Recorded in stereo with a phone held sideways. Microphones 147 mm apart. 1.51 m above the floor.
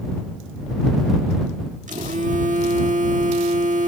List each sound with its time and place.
1.9 s a phone buzzing: 60° right (ahead or behind)